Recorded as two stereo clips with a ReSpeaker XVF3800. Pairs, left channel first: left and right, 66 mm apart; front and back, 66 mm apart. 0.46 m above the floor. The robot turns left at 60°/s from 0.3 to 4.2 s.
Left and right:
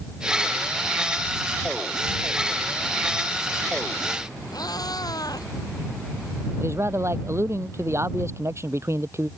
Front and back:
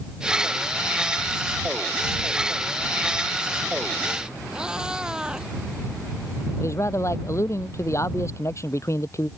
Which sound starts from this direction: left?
A cat meowing, at 4.5 s.